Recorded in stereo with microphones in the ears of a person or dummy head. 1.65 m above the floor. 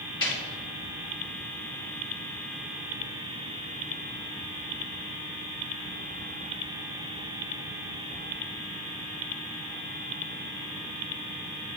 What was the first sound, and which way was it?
A snare drum, 20° left (ahead or behind).